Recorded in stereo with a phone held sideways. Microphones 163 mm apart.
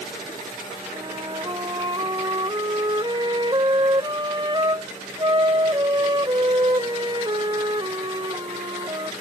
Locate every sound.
0.9 s a flute: 30° right (ahead or behind)